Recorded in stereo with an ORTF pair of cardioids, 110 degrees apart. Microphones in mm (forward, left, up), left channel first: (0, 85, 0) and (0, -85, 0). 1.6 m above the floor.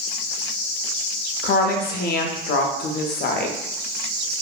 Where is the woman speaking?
70° left, 0.5 m.